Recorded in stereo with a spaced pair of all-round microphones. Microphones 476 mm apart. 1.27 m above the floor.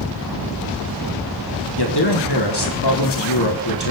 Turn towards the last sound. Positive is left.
turn(degrees=55)  # may be behind; listen again after turning